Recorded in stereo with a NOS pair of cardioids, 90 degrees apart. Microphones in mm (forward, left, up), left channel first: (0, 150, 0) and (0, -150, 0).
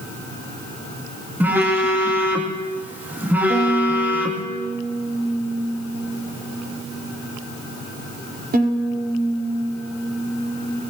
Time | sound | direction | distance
1.4 | a phone buzzing | 5° right | 2.5 m
3.5 | a violin | 30° right | 4.5 m